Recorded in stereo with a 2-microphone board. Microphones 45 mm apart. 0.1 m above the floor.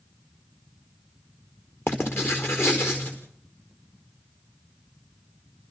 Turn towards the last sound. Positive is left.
turn(degrees=55)  # may be behind; listen again after turning